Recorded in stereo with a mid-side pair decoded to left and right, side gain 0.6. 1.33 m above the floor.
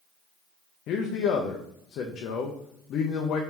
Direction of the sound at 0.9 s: 55° left.